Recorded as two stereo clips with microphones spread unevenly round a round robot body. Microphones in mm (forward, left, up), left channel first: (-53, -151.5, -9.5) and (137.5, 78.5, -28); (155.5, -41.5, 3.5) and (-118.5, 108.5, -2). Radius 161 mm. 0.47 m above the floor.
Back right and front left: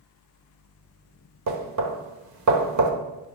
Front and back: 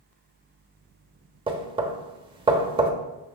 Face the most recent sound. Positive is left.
turn(degrees=80)